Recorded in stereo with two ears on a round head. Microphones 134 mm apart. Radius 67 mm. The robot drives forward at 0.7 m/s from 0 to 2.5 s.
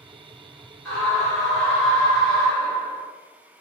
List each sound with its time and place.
0.8 s a scream: 5° left (ahead or behind), 1.4 m